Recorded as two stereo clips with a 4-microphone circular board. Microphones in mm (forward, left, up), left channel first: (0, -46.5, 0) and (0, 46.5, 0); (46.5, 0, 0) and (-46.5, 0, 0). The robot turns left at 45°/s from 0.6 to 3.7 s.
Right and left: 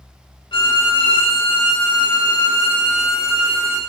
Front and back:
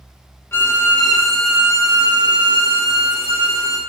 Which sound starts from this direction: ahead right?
A violin, at 0.5 s.